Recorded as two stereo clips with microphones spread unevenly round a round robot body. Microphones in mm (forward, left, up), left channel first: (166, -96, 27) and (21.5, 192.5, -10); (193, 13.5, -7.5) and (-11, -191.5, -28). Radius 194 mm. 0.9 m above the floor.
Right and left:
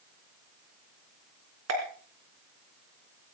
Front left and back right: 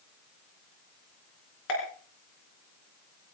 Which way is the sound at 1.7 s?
75° left.